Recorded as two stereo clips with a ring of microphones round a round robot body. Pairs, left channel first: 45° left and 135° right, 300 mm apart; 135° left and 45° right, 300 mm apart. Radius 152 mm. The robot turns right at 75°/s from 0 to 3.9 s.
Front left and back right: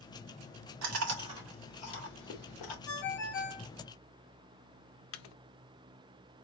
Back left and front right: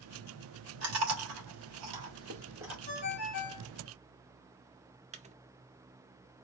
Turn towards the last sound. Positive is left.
turn(degrees=20)